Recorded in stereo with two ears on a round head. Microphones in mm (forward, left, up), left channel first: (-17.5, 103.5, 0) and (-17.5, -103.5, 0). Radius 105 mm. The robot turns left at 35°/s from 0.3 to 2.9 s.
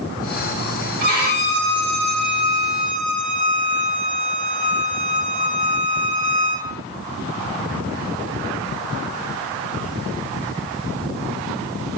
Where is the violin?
35° right, 2.5 m; by 6.7 s 100° right, 2.5 m.